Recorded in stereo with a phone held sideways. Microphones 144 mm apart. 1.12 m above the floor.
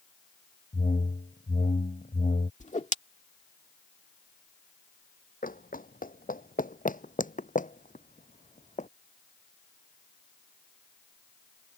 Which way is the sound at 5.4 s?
75° left (ahead or behind).